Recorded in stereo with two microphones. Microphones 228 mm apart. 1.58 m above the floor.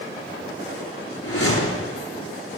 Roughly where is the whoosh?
Left.